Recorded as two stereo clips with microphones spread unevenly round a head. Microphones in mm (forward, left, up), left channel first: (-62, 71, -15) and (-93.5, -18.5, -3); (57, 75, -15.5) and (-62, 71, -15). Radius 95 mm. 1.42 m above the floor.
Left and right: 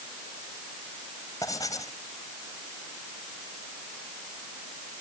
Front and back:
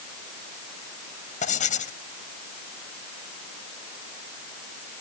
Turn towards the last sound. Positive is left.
turn(degrees=0)